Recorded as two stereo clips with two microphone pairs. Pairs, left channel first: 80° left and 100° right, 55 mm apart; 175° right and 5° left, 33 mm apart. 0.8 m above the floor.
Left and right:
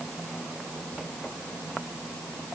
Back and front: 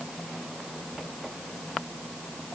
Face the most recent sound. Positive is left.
No sound to turn to.